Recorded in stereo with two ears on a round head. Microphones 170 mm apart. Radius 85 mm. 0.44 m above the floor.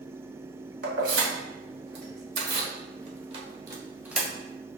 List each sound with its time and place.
0.8 s keys jangling: 75° right (ahead or behind), 2 m; by 4.3 s centre (ahead or behind), 1.1 m